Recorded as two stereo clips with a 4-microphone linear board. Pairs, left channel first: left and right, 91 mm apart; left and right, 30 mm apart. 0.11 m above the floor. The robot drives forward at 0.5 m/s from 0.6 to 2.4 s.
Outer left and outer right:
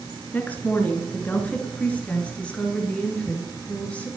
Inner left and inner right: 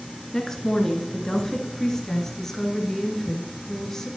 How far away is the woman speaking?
About 1.7 m.